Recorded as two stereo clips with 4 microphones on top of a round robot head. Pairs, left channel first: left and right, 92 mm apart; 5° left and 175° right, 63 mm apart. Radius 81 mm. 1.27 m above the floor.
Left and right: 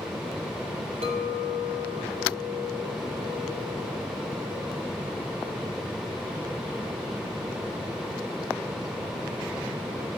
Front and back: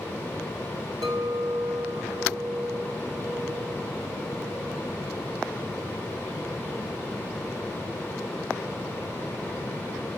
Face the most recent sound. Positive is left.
turn(degrees=-125)